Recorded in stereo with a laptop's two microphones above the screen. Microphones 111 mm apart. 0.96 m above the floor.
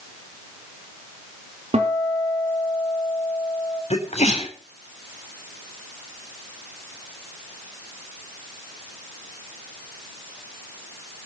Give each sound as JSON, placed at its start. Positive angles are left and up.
{"t": 1.7, "sound": "a guitar", "side_deg": -70, "distance_m": 2.5}
{"t": 3.9, "sound": "a sneeze", "side_deg": 80, "distance_m": 3.5}